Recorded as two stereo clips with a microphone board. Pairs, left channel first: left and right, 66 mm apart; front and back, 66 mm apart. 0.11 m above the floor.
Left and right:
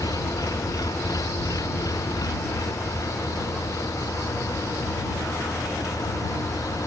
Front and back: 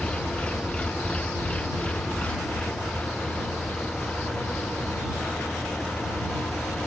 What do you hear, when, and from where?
0.0 s an engine running: 70° left